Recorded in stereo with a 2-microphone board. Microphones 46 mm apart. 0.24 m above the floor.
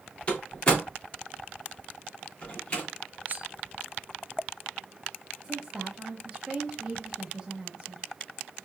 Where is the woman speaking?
20° right (ahead or behind), 0.9 m.